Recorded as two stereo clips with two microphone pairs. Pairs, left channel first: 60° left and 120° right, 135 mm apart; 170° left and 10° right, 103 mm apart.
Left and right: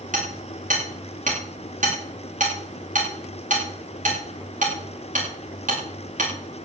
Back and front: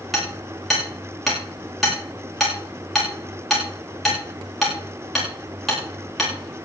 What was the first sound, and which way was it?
Hammering, 100° right.